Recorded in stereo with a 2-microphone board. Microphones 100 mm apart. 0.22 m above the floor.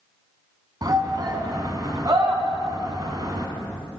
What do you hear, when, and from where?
0.8 s a shout: 45° right (ahead or behind), 1.9 m